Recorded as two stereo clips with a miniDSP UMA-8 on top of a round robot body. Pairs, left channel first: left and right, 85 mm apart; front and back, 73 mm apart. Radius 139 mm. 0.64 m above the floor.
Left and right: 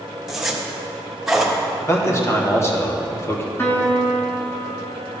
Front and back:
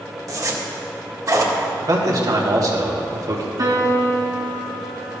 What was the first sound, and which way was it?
A zipper, 175° right.